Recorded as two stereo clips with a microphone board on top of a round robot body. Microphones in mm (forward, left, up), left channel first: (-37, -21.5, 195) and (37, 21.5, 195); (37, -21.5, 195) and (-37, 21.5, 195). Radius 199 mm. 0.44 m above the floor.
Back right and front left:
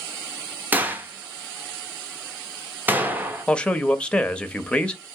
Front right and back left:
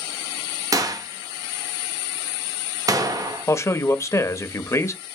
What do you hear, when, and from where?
0.7 s a gunshot: 100° left, 0.8 m
3.5 s a man speaking: 75° right, 0.9 m